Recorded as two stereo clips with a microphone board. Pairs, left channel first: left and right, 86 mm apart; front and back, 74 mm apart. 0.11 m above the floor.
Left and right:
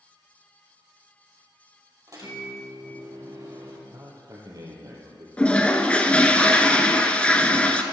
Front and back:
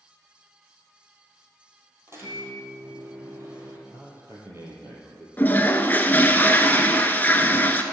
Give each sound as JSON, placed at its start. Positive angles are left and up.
{"t": 2.1, "sound": "a microwave", "azimuth_deg": -130, "distance_m": 2.5}
{"t": 3.9, "sound": "a man speaking", "azimuth_deg": -130, "distance_m": 2.5}
{"t": 5.4, "sound": "a toilet flushing", "azimuth_deg": 30, "distance_m": 0.6}